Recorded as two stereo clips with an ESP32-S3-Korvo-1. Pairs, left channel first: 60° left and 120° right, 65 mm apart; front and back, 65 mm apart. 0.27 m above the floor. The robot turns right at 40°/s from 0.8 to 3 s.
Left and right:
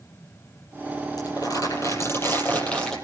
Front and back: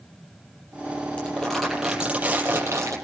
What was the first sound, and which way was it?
Crumpling, 70° left.